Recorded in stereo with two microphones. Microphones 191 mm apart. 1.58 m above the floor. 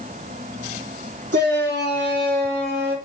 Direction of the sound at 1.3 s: 65° right (ahead or behind).